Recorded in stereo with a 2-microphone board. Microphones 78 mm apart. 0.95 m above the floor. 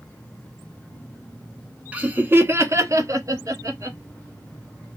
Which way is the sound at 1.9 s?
15° right (ahead or behind).